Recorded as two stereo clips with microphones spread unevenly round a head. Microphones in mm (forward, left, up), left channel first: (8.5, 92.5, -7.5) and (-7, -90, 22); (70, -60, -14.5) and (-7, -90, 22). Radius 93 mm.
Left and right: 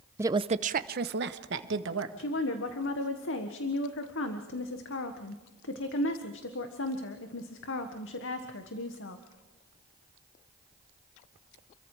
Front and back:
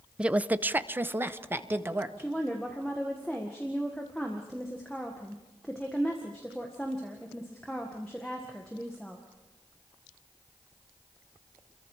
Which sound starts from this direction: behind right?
A woman speaking, at 0.2 s.